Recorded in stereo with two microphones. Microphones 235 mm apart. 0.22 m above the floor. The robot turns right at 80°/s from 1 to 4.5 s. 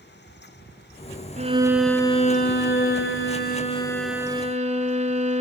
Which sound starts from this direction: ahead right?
A violin, at 1.4 s.